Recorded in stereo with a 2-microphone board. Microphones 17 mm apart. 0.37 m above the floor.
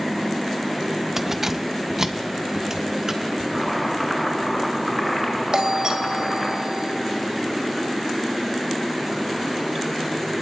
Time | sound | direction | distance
1.2 | keys jangling | 20° right (ahead or behind) | 0.9 m
3.5 | chopping | 10° left (ahead or behind) | 5.5 m
5.5 | a doorbell | 45° right (ahead or behind) | 2.5 m